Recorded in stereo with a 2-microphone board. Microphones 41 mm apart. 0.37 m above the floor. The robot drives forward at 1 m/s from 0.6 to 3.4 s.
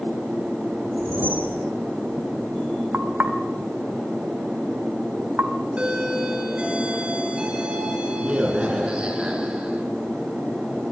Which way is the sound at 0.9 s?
55° right (ahead or behind).